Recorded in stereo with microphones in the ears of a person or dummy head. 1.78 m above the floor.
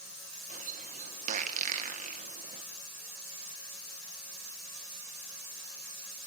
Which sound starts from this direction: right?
A bird, at 0.5 s.